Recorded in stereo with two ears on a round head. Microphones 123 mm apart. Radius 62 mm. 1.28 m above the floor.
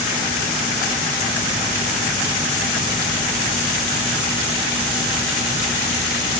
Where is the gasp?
No gasp in this recording.